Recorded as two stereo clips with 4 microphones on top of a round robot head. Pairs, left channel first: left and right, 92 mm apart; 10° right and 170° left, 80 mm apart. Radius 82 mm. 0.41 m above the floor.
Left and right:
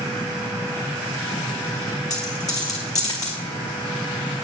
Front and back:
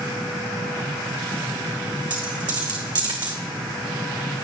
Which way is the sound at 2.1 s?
140° left.